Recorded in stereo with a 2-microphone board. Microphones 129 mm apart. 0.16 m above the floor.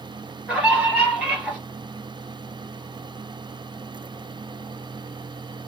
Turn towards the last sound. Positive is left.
turn(degrees=-5)  # may be behind; listen again after turning